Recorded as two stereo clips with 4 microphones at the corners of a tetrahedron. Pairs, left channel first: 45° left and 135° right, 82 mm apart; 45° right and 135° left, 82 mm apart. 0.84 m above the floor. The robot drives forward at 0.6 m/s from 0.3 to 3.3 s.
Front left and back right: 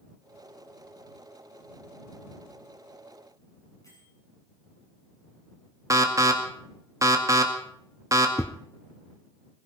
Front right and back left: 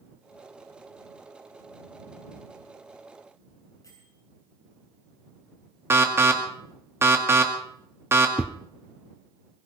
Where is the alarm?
175° right, 1.9 m.